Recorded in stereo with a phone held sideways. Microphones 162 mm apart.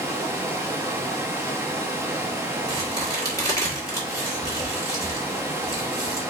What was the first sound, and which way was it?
Running water, 15° right (ahead or behind).